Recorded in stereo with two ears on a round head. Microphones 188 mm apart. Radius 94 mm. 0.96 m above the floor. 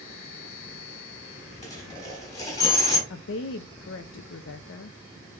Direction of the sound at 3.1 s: 60° left (ahead or behind).